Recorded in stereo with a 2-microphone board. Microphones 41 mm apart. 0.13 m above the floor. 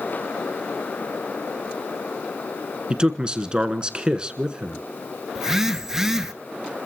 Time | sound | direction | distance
2.9 | a man speaking | 20° right (ahead or behind) | 1.2 m
5.3 | a phone buzzing | 10° right (ahead or behind) | 0.8 m